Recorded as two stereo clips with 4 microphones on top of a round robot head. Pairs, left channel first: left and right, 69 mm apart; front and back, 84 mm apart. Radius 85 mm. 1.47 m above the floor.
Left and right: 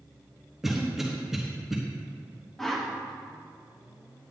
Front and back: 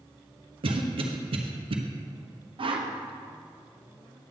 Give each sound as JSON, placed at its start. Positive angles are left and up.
{"t": 0.6, "sound": "a cough", "azimuth_deg": -175, "distance_m": 0.8}
{"t": 2.6, "sound": "a whoosh", "azimuth_deg": 175, "distance_m": 1.0}